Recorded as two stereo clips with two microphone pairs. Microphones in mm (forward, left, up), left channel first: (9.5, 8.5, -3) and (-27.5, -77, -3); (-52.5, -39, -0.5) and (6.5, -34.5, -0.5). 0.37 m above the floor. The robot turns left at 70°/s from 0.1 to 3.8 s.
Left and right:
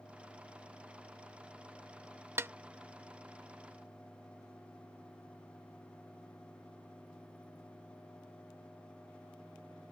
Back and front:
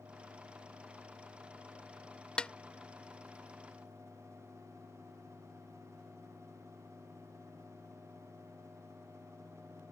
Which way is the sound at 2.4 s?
120° right.